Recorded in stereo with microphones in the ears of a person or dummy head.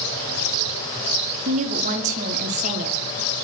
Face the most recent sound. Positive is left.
turn(degrees=-40)  # may be behind; listen again after turning